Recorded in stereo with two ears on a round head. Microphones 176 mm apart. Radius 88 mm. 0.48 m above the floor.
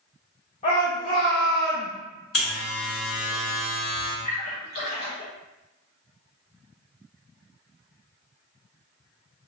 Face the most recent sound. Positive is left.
turn(degrees=40)  # may be behind; listen again after turning